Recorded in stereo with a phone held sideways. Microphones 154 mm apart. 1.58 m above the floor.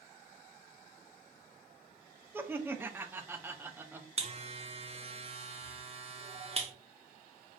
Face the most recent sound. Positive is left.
turn(degrees=-40)  # may be behind; listen again after turning